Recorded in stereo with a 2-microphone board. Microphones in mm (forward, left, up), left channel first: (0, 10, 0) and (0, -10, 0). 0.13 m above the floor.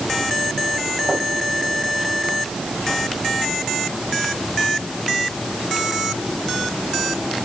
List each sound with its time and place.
Only background noise.